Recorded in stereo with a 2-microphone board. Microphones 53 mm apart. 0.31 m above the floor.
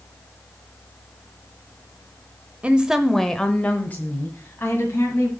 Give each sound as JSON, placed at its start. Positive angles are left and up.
{"t": 2.6, "sound": "a woman speaking", "side_deg": -25, "distance_m": 0.9}